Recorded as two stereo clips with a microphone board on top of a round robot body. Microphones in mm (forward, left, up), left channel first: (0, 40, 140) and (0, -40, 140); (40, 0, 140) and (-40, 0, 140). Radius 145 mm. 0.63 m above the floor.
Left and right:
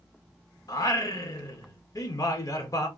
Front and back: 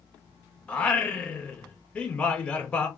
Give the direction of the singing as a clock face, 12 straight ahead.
10 o'clock.